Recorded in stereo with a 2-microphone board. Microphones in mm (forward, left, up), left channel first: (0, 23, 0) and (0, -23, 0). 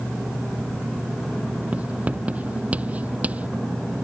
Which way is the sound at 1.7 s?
30° right (ahead or behind).